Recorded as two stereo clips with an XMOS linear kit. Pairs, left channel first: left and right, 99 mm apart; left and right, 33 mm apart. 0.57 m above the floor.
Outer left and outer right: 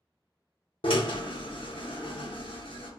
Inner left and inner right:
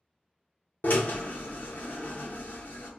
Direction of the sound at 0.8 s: 60° left (ahead or behind).